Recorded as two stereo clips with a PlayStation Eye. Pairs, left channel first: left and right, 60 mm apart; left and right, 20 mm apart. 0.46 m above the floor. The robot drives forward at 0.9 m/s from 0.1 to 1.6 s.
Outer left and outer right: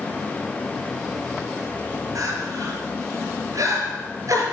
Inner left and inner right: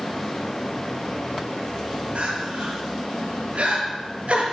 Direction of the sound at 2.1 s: 55° right (ahead or behind).